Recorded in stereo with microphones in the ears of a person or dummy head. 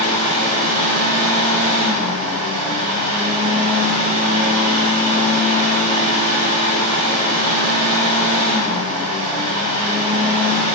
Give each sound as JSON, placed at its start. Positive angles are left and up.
{"t": 0.0, "sound": "a fan", "side_deg": -55, "distance_m": 1.3}